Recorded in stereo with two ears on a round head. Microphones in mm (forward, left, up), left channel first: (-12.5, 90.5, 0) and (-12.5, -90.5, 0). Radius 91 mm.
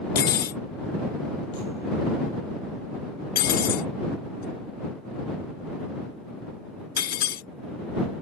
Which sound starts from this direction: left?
Cutlery clinking, at 0.1 s.